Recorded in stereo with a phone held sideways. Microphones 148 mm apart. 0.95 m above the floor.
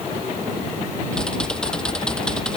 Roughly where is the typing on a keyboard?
Centre.